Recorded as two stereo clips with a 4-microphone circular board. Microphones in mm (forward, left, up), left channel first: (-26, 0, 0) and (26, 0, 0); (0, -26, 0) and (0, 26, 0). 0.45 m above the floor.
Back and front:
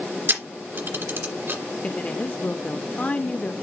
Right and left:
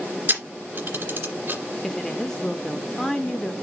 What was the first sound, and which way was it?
A camera shutter, 40° left.